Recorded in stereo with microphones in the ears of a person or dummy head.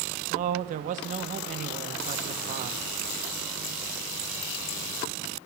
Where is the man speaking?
45° right (ahead or behind), 1.3 m.